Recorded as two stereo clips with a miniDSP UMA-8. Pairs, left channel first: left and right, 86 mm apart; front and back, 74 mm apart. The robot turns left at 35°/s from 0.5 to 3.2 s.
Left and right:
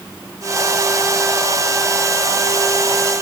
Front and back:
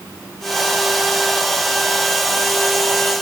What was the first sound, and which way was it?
Only background noise.